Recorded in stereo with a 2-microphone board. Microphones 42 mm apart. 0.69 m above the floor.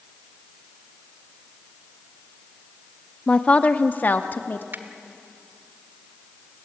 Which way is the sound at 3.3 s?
20° left (ahead or behind).